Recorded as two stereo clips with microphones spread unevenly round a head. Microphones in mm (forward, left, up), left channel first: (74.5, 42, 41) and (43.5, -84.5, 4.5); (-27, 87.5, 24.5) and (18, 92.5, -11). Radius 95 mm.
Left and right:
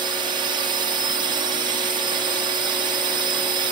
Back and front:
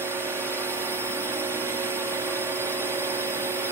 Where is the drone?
85° right.